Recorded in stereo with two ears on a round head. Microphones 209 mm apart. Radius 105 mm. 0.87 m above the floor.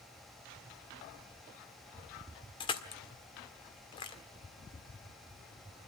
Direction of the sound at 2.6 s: 20° left (ahead or behind).